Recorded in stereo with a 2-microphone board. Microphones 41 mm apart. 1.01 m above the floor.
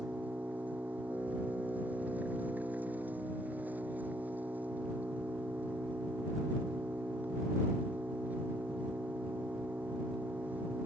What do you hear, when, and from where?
0.0 s an engine running: 45° right (ahead or behind)